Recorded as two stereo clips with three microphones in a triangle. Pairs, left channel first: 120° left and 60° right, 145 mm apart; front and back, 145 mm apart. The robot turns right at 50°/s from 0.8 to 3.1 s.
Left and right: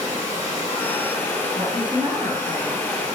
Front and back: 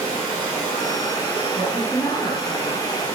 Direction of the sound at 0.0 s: 130° right.